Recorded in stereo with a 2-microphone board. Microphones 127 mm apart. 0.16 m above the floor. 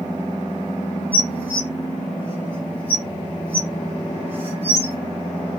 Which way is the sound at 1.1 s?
15° right (ahead or behind).